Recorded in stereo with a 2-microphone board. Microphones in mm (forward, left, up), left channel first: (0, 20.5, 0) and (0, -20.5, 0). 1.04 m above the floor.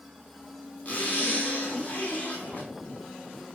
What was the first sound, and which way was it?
A zipper, 35° left (ahead or behind).